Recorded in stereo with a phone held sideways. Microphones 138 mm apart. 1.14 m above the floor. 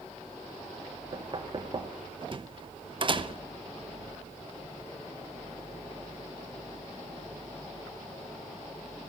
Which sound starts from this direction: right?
Knocking, at 1.1 s.